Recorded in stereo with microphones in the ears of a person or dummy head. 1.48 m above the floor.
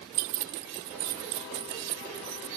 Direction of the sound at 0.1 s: 45° right (ahead or behind).